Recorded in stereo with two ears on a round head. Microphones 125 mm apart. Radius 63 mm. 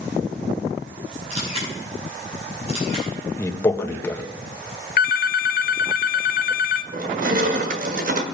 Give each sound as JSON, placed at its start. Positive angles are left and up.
{"t": 1.3, "sound": "a camera shutter", "side_deg": -50, "distance_m": 6.0}
{"t": 3.4, "sound": "a man speaking", "side_deg": 20, "distance_m": 1.2}
{"t": 5.0, "sound": "a phone ringing", "side_deg": 65, "distance_m": 0.7}
{"t": 6.9, "sound": "crushing", "side_deg": -60, "distance_m": 1.3}